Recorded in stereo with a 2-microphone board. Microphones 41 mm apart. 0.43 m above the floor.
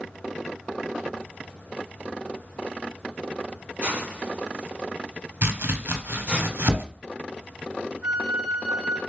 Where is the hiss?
35° right (ahead or behind), 1.7 m.